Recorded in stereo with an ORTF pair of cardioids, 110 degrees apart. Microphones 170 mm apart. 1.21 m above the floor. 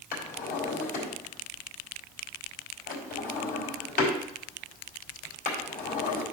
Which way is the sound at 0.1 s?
55° left.